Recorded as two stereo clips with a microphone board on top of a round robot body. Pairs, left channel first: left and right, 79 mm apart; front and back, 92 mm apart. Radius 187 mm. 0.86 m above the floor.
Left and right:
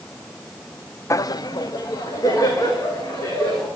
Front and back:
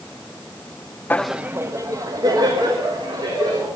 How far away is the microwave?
I don't hear a microwave.